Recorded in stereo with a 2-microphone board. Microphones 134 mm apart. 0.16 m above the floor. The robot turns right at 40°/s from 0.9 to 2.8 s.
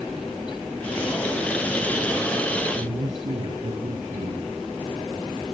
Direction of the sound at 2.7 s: 65° right (ahead or behind).